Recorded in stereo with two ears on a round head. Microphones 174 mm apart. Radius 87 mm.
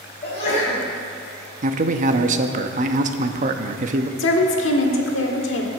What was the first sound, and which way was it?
A sneeze, 35° left (ahead or behind).